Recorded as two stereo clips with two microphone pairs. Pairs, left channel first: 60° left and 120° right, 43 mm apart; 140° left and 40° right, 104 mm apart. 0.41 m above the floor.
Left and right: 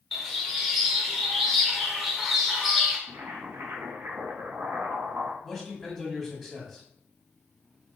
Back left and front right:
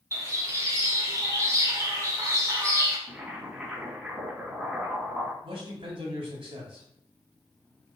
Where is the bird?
35° right, 1.5 m.